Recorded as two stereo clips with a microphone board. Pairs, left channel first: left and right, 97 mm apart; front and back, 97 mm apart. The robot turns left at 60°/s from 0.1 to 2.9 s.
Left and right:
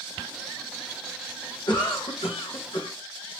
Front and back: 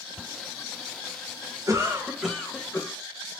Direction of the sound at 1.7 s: 130° left.